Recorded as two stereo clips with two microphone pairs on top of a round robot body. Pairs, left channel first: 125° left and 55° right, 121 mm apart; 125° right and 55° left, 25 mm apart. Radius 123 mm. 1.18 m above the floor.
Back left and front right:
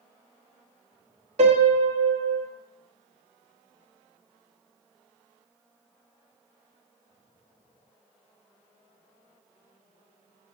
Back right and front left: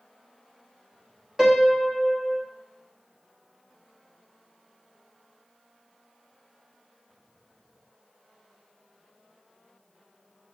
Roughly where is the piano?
Ahead.